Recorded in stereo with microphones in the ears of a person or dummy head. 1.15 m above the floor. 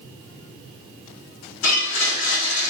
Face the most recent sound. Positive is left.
turn(degrees=85)